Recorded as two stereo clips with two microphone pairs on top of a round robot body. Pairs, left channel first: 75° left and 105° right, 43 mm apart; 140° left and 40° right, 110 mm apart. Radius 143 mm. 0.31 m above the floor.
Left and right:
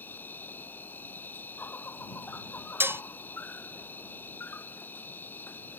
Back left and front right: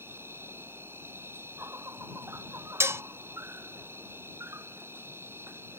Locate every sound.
0.0 s an insect: 30° left
2.8 s dishes clattering: 95° right